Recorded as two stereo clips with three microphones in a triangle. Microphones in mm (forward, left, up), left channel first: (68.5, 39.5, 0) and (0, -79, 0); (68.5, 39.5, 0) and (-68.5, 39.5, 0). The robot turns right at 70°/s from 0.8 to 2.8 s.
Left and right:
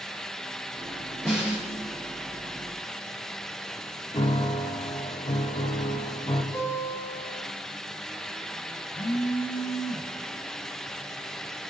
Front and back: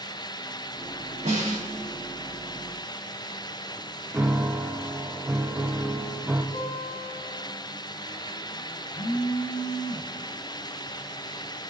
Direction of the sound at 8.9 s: 10° left.